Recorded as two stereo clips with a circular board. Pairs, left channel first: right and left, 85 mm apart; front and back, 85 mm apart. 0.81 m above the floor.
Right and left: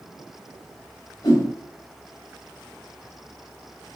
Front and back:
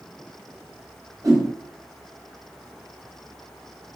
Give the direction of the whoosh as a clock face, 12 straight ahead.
4 o'clock.